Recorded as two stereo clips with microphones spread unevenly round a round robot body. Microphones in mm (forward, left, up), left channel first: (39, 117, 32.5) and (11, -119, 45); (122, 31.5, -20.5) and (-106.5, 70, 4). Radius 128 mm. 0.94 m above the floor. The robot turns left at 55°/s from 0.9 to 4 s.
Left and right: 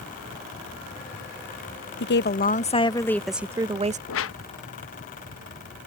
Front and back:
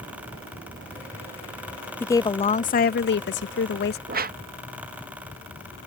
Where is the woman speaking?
65° left; by 4.0 s 45° right.